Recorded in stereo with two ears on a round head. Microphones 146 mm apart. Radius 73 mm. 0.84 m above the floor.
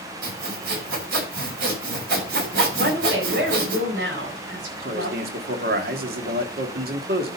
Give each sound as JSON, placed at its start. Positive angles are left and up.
{"t": 0.2, "sound": "sawing", "side_deg": -70, "distance_m": 6.5}
{"t": 2.8, "sound": "a woman speaking", "side_deg": -75, "distance_m": 4.0}
{"t": 4.8, "sound": "a man speaking", "side_deg": -65, "distance_m": 2.0}